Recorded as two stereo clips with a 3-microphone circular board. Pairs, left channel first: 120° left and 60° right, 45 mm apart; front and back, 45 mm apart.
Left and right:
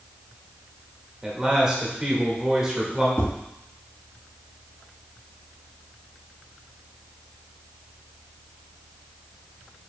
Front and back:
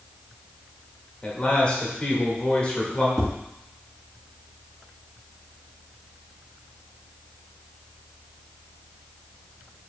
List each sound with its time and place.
1.2 s a man speaking: 5° right, 1.2 m
3.2 s tapping: 95° left, 2.5 m